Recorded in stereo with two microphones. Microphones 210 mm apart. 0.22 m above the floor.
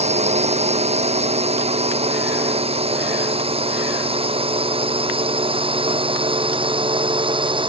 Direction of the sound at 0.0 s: 30° right (ahead or behind).